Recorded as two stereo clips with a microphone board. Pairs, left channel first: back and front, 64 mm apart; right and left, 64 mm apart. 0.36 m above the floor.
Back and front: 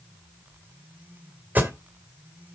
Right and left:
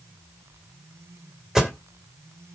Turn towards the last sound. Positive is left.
turn(degrees=15)